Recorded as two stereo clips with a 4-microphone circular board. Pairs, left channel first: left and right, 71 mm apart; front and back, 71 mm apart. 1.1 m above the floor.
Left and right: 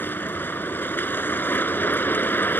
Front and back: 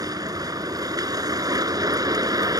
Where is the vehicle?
150° left.